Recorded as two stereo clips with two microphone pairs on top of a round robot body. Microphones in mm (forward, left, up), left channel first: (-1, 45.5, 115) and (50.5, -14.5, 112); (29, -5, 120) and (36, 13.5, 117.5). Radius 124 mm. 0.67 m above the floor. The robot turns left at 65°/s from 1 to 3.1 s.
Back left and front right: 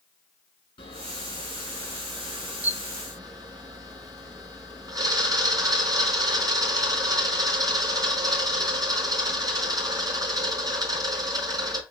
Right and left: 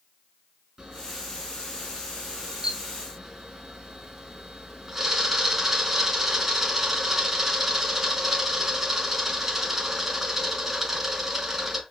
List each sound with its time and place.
0.8 s a camera shutter: 135° left, 4 m; by 11.8 s 5° right, 4 m